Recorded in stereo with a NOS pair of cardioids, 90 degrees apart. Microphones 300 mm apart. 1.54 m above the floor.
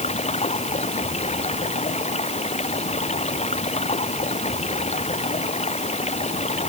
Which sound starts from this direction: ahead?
Running water, at 0.0 s.